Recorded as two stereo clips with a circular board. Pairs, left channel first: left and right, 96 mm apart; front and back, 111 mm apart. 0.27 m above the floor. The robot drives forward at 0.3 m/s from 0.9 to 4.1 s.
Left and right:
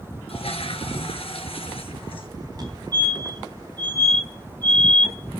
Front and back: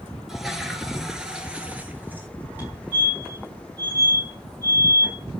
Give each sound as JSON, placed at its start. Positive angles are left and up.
{"t": 0.3, "sound": "a toilet flushing", "azimuth_deg": 95, "distance_m": 1.6}
{"t": 2.6, "sound": "a fire alarm", "azimuth_deg": -110, "distance_m": 3.5}